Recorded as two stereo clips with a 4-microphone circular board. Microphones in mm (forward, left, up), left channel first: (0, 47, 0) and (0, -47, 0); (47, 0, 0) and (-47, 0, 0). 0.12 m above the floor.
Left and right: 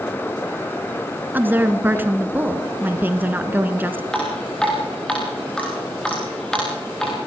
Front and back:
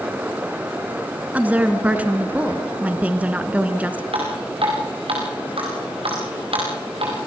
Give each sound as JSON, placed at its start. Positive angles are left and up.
{"t": 1.3, "sound": "a woman speaking", "azimuth_deg": -130, "distance_m": 1.5}
{"t": 4.1, "sound": "dripping", "azimuth_deg": 170, "distance_m": 7.0}